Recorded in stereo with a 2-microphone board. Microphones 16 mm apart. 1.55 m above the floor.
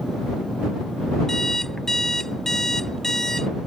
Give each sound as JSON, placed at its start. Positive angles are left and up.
{"t": 1.3, "sound": "an alarm clock", "side_deg": 30}